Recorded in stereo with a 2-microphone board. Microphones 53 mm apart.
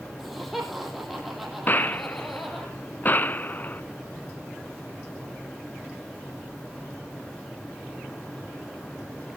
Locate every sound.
0.2 s laughter: 5° right (ahead or behind), 6.5 m
1.7 s a gunshot: 35° left (ahead or behind), 0.7 m